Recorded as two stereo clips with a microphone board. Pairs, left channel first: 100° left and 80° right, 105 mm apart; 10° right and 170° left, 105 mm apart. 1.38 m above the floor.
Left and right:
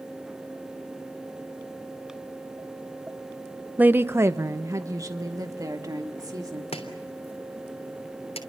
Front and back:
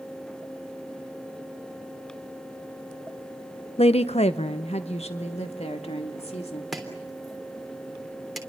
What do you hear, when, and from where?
3.8 s a woman speaking: 5° right, 0.6 m; by 6.6 s 25° right, 2.5 m
6.7 s chopping: 80° left, 3 m